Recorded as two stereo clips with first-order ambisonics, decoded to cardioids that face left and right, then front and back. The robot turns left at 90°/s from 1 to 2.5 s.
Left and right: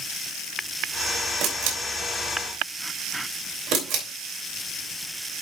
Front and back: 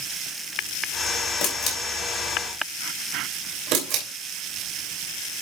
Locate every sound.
1.4 s a camera shutter: 40° right, 3 m; by 4.0 s 140° right, 3 m